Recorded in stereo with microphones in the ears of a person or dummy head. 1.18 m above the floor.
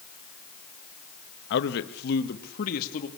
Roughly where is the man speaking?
Left.